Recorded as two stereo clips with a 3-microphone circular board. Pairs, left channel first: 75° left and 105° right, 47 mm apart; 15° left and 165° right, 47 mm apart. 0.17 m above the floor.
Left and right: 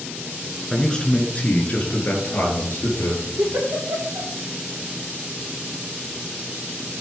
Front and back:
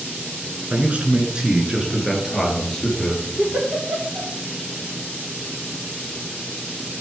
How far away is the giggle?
About 3.5 m.